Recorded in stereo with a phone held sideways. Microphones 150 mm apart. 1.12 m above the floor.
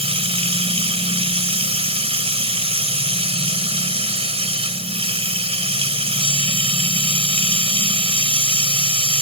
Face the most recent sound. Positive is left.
turn(degrees=-40)  # may be behind; listen again after turning